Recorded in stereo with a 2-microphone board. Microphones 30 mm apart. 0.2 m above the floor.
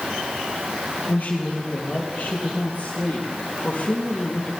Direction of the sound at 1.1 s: 75° left (ahead or behind).